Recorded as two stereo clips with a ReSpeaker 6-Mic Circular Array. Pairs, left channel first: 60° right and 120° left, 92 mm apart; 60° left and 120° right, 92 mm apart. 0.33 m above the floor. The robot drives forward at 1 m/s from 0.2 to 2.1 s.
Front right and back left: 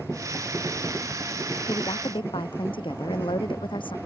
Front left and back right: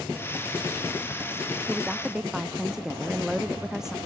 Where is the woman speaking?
35° right.